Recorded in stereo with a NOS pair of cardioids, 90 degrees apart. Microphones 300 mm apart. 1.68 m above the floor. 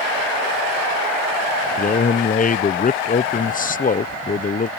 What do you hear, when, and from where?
1.8 s a man speaking: 25° left